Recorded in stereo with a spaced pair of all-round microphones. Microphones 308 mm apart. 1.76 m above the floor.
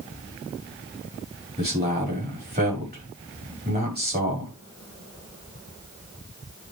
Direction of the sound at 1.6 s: 30° right (ahead or behind).